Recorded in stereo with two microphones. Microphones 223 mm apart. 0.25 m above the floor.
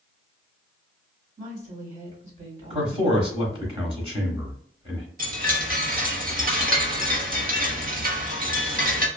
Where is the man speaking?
25° right (ahead or behind), 1.1 m.